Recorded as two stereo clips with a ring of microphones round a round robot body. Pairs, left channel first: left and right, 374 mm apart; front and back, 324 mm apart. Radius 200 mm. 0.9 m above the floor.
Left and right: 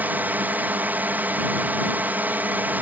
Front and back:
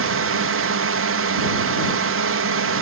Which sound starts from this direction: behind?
A drone, at 0.0 s.